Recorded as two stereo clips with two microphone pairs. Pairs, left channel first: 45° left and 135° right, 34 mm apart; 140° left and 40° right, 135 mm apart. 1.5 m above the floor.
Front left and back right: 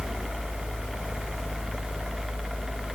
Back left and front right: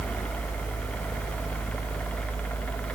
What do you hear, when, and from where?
Only background noise.